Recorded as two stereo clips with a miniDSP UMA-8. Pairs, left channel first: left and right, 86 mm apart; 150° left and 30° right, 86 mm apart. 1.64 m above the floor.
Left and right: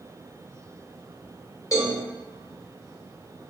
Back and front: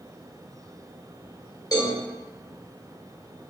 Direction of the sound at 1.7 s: 120° left.